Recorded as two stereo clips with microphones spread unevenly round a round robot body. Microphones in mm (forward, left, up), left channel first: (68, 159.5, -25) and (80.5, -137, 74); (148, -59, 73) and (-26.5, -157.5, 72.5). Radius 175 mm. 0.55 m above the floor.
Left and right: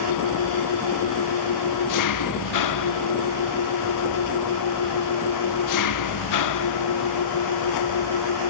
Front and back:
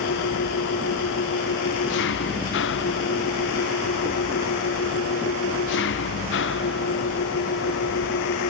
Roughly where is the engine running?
Left.